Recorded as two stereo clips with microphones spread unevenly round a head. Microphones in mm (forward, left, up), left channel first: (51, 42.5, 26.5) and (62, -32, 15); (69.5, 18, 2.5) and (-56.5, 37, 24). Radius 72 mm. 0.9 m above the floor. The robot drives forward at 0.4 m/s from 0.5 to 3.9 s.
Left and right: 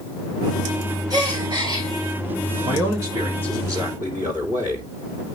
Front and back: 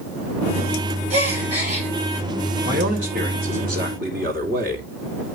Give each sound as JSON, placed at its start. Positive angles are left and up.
{"t": 1.1, "sound": "a gasp", "azimuth_deg": -140, "distance_m": 7.5}
{"t": 2.6, "sound": "a man speaking", "azimuth_deg": -150, "distance_m": 2.5}